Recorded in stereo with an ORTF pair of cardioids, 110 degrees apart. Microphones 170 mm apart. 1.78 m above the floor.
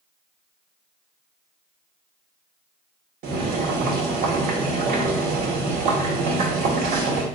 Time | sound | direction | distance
3.2 | boiling | 65° right | 1.1 m